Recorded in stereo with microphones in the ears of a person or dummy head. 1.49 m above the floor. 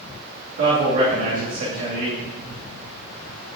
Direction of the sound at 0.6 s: 40° right (ahead or behind).